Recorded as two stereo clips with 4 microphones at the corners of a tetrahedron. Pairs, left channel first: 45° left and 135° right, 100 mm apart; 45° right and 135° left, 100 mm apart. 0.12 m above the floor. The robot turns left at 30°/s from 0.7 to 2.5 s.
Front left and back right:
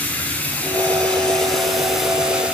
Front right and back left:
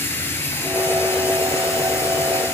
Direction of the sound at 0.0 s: 10° right.